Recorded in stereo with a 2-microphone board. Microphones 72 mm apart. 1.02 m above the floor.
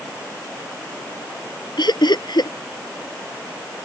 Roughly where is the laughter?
Left.